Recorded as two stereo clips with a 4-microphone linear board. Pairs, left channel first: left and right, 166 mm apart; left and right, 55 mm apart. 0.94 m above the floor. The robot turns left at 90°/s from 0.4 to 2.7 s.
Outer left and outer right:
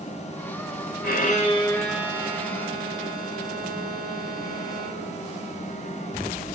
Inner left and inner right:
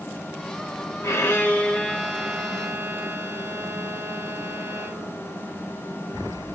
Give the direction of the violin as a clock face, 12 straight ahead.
9 o'clock.